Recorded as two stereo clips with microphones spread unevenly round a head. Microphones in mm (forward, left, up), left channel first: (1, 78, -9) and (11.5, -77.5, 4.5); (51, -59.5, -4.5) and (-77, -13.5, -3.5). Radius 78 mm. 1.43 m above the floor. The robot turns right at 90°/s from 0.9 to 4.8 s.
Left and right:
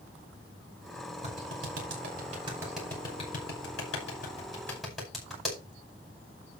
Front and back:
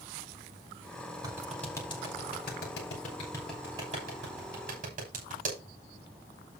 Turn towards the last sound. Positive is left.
turn(degrees=-175)